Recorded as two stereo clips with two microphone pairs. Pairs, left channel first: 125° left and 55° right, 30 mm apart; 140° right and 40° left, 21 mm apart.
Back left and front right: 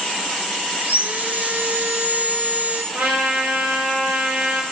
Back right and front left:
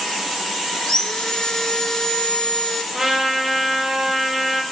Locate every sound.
0.8 s sawing: 85° right, 1.0 m
2.9 s a trumpet: 50° right, 3 m